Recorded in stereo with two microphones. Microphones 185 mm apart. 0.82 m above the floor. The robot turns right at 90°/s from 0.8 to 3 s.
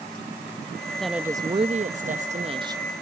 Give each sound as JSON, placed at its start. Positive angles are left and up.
{"t": 0.9, "sound": "a woman speaking", "azimuth_deg": 170}